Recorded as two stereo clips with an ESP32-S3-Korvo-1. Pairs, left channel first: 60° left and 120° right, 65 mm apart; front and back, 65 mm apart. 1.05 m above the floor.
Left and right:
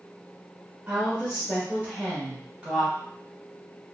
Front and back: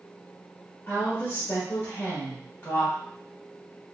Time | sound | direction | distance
0.9 | a woman speaking | 50° right | 1.4 m